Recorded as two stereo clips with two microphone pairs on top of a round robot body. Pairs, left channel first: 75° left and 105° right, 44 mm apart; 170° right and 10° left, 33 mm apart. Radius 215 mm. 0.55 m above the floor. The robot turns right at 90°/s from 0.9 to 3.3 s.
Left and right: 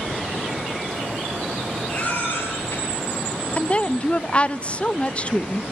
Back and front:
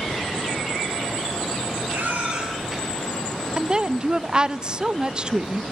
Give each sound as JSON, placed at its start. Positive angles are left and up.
{"t": 1.9, "sound": "a baby crying", "azimuth_deg": 20, "distance_m": 9.0}
{"t": 3.6, "sound": "a woman speaking", "azimuth_deg": 60, "distance_m": 0.8}